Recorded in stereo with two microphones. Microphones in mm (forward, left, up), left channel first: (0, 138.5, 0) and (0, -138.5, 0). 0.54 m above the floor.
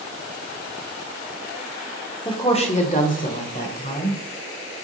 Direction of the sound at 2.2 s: 15° left (ahead or behind).